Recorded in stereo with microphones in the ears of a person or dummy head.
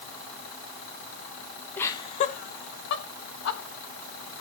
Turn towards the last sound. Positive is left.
turn(degrees=80)